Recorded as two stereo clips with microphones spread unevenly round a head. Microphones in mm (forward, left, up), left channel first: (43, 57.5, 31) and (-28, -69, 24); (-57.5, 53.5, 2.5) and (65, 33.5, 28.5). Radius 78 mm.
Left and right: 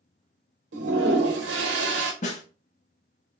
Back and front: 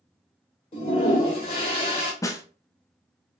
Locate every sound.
0.7 s a toilet flushing: 130° right, 0.8 m
2.2 s a snare drum: 100° left, 0.5 m